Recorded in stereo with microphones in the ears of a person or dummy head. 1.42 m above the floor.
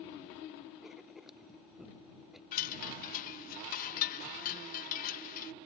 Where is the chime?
50° left (ahead or behind).